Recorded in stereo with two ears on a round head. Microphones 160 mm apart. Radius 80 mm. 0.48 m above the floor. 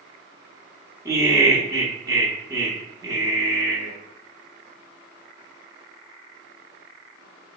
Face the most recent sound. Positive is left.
turn(degrees=-15)  # may be behind; listen again after turning